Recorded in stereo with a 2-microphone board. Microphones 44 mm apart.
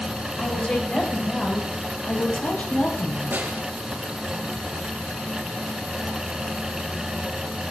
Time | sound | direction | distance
0.4 | a woman speaking | 30° left (ahead or behind) | 8 m
3.3 | a snare drum | 50° right (ahead or behind) | 2.5 m